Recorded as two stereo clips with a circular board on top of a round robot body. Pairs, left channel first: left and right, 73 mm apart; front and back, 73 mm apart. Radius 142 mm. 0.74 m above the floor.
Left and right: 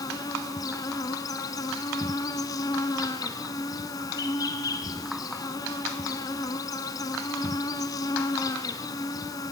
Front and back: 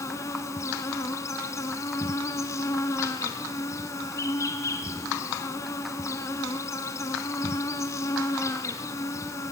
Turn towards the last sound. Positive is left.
turn(degrees=50)